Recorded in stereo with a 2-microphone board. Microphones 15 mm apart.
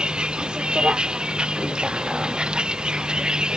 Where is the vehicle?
75° right (ahead or behind); by 3.6 s 70° right (ahead or behind).